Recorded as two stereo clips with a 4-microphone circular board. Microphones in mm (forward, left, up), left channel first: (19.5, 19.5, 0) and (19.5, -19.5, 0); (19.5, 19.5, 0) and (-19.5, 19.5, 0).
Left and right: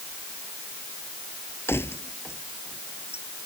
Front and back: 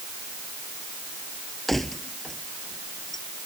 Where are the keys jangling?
85° left; by 3.2 s 80° left.